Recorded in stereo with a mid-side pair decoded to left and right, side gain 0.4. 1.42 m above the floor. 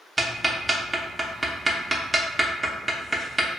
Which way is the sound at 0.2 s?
20° right.